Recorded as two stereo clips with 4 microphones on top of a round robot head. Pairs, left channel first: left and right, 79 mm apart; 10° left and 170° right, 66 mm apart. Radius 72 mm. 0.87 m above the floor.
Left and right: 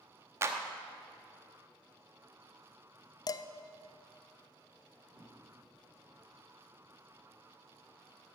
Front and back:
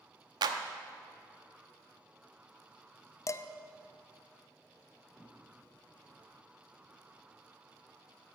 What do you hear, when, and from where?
0.4 s a clap: 150° right, 0.8 m
3.3 s dishes clattering: 50° left, 0.6 m
5.1 s a whoosh: 100° right, 6 m